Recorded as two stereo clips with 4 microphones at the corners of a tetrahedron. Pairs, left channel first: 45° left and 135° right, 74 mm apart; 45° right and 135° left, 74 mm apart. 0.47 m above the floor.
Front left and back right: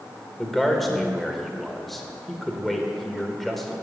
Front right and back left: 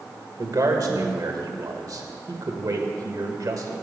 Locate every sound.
0.4 s a man speaking: 130° left, 1.2 m